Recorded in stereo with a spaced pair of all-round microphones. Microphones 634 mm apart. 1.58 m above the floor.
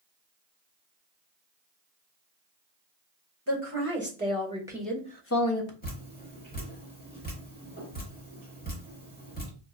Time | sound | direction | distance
3.5 | a woman speaking | 20° right (ahead or behind) | 1.7 m
5.8 | dripping | 15° left (ahead or behind) | 1.0 m